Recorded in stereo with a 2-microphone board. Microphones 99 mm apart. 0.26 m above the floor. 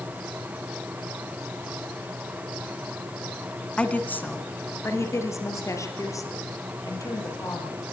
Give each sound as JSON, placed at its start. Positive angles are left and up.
{"t": 3.8, "sound": "a woman speaking", "side_deg": 10, "distance_m": 1.9}